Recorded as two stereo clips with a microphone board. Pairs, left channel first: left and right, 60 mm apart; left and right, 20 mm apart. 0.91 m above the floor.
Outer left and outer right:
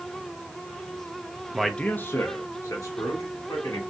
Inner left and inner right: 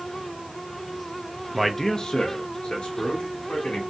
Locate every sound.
1.5 s a man speaking: 10° right (ahead or behind), 0.6 m; by 3.8 s 70° left (ahead or behind), 2.5 m